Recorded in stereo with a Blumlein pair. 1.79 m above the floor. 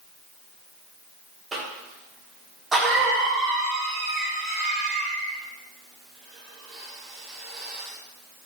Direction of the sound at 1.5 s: 15° right.